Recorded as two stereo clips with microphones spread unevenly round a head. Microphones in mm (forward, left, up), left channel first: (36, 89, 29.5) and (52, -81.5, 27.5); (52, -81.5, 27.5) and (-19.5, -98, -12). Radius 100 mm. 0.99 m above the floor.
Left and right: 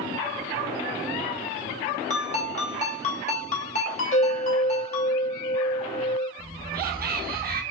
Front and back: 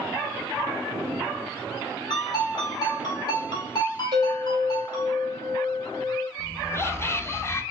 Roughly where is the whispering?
Ahead right.